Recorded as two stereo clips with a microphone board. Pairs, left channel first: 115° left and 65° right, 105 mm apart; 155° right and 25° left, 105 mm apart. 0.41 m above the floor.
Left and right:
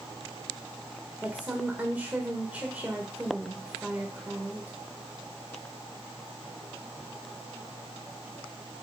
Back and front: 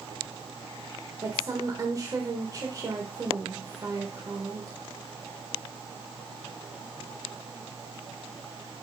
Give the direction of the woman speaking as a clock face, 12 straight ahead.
12 o'clock.